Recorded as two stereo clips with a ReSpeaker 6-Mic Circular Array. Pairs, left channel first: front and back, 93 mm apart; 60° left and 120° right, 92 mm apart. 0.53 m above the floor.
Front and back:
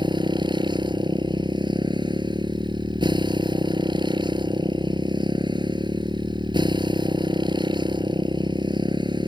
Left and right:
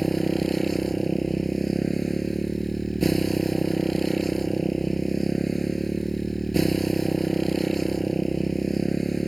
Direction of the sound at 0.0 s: 150° left.